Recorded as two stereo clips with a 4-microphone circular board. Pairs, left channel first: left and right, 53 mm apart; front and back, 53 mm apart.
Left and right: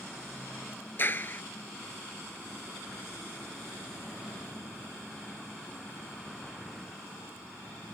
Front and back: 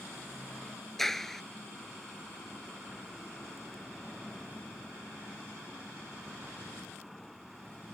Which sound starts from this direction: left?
A clap, at 1.0 s.